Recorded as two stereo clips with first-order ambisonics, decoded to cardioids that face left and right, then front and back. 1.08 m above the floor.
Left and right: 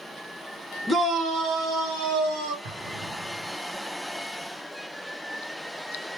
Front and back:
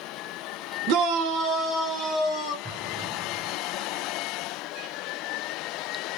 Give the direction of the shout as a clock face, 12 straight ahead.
6 o'clock.